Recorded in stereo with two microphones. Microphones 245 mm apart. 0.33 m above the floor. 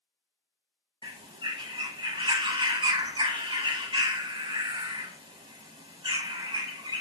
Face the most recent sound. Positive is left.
turn(degrees=-20)  # may be behind; listen again after turning